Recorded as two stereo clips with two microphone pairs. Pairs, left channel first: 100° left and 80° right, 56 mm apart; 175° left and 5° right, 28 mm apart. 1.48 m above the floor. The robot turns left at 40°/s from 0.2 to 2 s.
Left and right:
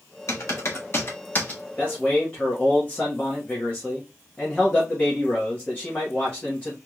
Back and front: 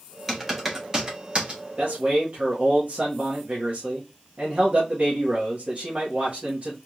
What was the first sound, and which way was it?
Typing on a keyboard, 90° left.